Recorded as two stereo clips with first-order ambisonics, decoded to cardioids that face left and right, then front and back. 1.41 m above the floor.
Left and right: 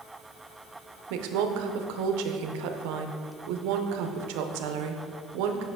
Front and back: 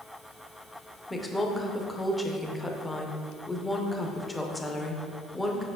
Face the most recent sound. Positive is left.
turn(degrees=-80)